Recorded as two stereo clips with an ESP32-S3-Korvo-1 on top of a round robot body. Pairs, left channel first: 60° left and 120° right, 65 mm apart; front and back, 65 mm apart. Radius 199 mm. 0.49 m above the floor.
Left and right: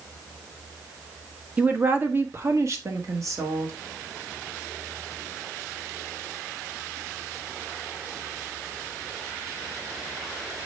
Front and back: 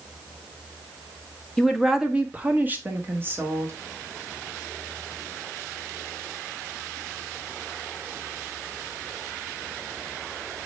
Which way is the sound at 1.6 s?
80° right.